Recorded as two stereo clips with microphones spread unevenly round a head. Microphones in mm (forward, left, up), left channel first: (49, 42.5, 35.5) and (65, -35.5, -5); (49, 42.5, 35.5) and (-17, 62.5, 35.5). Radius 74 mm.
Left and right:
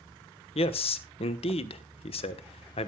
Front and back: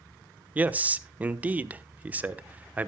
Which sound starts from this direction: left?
A man speaking, at 0.6 s.